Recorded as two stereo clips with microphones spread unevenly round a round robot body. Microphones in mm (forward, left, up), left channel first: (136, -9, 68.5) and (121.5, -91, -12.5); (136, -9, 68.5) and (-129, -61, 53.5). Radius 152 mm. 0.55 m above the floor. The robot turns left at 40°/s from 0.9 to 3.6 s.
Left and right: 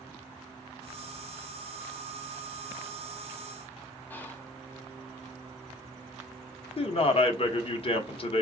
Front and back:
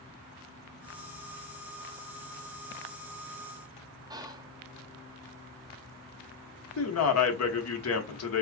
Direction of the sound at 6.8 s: 25° left.